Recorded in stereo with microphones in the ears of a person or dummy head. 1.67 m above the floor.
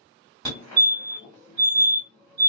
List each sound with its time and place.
0.5 s a fire alarm: 20° left (ahead or behind), 1.8 m